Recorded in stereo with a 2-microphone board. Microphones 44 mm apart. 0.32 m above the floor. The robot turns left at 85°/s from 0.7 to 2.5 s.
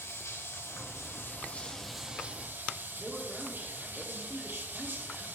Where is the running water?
105° left, 1.6 m; by 5.4 s 50° right, 1.6 m.